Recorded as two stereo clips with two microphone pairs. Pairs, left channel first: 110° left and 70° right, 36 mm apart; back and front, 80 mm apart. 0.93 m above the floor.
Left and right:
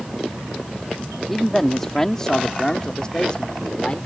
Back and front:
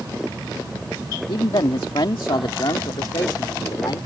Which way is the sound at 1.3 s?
170° right.